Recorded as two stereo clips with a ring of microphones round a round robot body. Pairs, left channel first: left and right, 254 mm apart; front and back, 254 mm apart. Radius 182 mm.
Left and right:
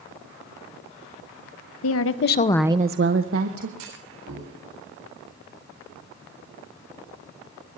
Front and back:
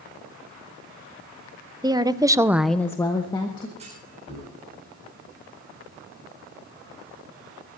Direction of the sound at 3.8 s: 105° right.